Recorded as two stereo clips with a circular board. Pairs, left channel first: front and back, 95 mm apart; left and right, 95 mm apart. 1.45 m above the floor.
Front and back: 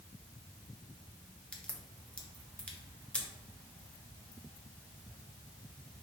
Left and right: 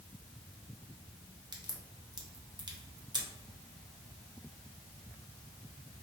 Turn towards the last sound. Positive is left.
turn(degrees=-75)